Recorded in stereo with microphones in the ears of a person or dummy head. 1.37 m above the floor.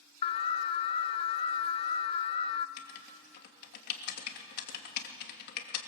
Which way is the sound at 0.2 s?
25° left (ahead or behind).